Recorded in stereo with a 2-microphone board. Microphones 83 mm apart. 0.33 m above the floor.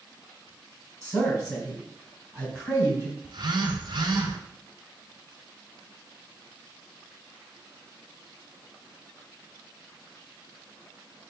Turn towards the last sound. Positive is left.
turn(degrees=-60)  # may be behind; listen again after turning